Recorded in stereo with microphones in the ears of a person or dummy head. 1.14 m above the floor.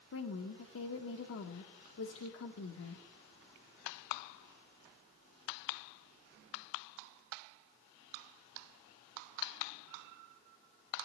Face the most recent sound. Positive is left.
turn(degrees=75)  # may be behind; listen again after turning